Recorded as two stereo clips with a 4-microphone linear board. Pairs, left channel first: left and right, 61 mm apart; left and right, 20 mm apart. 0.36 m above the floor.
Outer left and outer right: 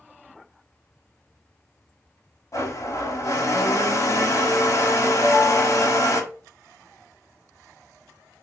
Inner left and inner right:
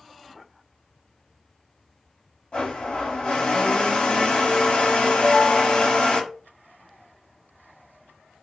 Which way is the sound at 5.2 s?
10° left (ahead or behind).